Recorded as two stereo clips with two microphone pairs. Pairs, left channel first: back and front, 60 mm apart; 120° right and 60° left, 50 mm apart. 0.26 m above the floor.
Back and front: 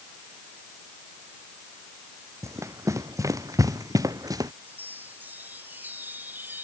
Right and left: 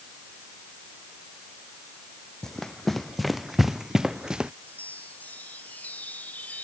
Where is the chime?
60° right.